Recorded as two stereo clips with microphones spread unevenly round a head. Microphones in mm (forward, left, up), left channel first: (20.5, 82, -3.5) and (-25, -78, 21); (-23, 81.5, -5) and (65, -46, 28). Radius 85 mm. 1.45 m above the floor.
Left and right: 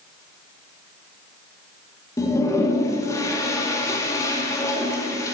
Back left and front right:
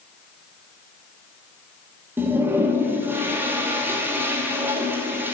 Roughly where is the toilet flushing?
Ahead.